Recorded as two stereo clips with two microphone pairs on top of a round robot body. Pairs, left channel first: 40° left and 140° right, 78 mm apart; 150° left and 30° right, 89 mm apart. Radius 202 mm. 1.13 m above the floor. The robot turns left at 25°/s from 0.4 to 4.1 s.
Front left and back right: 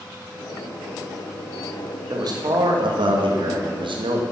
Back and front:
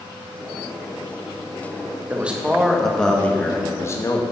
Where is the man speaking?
100° right, 1.6 m; by 4.2 s 150° right, 1.6 m.